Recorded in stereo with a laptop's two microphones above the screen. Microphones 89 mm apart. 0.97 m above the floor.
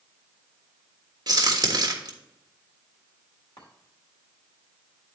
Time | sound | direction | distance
1.3 | a crack | 50° right (ahead or behind) | 1.4 m
3.6 | a chime | 65° left (ahead or behind) | 2.5 m